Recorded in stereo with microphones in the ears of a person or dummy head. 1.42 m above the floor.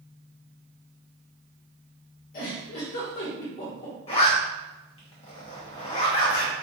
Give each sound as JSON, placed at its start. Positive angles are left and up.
{"t": 2.3, "sound": "a giggle", "side_deg": 50, "distance_m": 1.5}
{"t": 4.1, "sound": "a zipper", "side_deg": 30, "distance_m": 1.2}